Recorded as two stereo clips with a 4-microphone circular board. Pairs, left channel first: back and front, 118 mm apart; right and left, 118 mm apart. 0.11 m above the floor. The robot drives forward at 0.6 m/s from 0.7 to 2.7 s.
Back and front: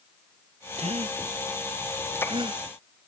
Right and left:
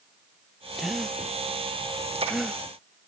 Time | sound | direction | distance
0.8 | a gasp | 5° left | ?